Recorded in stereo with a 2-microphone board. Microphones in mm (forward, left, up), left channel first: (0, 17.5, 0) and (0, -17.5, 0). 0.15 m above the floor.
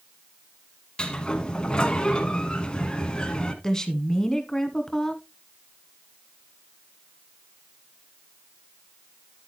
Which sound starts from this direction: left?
A sliding door, at 1.0 s.